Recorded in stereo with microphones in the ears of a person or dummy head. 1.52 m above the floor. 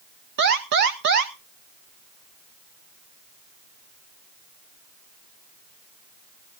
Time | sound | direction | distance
0.4 | an alarm | 45° right (ahead or behind) | 1.0 m